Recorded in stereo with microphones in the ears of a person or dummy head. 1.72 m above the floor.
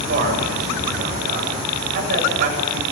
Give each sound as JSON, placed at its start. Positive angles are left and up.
{"t": 0.1, "sound": "a man speaking", "side_deg": -55, "distance_m": 7.5}